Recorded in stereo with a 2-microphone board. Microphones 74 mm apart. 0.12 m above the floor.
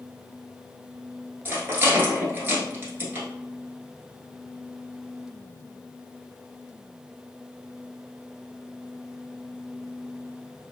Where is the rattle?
30° right (ahead or behind), 1.0 m.